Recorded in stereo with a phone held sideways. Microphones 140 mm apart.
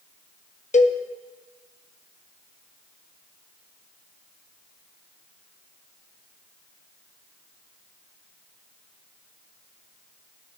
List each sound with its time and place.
0.7 s a cowbell: 55° left (ahead or behind), 0.7 m